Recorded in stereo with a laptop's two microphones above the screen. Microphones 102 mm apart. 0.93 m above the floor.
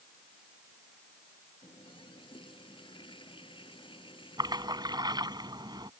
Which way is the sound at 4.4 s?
45° right (ahead or behind).